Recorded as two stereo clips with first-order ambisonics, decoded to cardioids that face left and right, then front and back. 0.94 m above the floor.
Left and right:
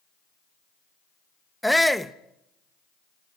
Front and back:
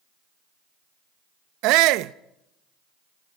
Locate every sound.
1.6 s a shout: straight behind, 0.8 m